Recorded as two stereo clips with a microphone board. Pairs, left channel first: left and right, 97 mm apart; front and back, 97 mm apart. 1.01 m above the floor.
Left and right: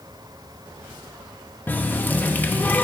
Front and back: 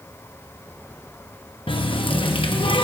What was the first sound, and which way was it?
A running tap, 20° left.